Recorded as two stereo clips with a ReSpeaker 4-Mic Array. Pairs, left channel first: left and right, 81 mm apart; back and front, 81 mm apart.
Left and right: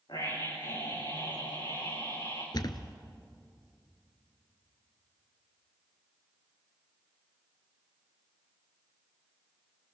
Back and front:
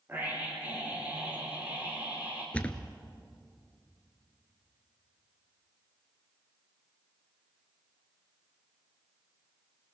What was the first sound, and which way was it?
A scream, 65° left.